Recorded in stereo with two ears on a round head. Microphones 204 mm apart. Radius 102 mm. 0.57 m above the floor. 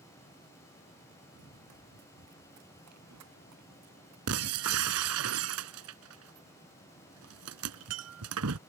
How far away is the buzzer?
No buzzer in this recording.